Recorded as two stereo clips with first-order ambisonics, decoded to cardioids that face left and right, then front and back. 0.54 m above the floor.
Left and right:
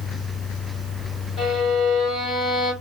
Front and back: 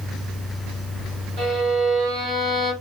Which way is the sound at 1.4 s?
145° left.